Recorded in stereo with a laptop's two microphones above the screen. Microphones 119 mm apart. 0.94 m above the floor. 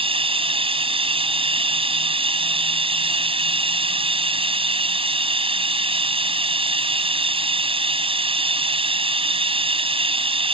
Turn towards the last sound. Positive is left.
turn(degrees=-50)  # may be behind; listen again after turning